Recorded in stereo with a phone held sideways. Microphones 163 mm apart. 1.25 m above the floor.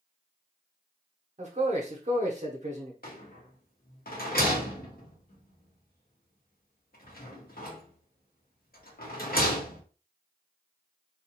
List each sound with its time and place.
1.4 s a man speaking: 45° right (ahead or behind), 0.8 m
3.0 s a rattle: 65° left (ahead or behind), 1.0 m